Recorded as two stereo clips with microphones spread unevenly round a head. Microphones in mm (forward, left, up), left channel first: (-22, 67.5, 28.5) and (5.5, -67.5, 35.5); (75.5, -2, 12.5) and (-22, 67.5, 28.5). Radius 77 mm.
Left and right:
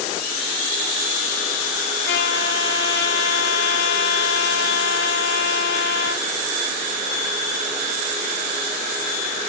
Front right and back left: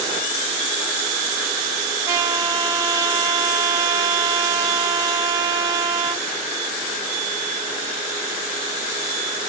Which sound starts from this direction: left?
A trumpet, at 2.0 s.